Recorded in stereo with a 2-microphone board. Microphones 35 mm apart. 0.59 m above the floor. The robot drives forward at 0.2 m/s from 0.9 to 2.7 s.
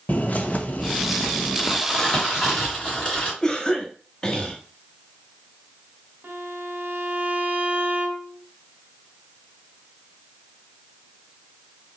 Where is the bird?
45° left (ahead or behind), 0.6 m; by 1.8 s 40° left (ahead or behind), 0.7 m.